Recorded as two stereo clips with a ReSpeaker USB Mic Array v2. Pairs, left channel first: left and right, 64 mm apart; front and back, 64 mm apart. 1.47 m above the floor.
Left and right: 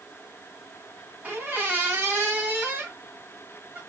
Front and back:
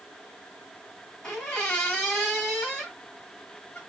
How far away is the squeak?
About 1.3 m.